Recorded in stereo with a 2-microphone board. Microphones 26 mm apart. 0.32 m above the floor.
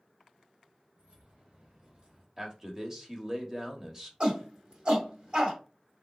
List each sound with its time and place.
1.0 s keys jangling: 50° right (ahead or behind), 2 m; by 2.3 s 35° right (ahead or behind), 1.2 m
2.4 s a man speaking: 20° right (ahead or behind), 0.8 m
4.2 s a shout: 40° right (ahead or behind), 1.3 m